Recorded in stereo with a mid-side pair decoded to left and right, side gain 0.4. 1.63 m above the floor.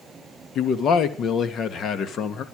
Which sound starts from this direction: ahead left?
A man speaking, at 0.6 s.